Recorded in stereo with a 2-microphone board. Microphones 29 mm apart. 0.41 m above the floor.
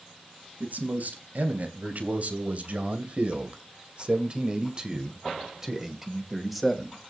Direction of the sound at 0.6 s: 65° right (ahead or behind).